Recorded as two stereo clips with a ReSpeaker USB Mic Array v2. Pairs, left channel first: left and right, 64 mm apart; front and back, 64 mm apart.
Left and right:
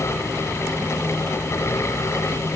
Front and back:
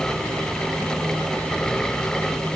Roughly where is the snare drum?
I don't hear a snare drum.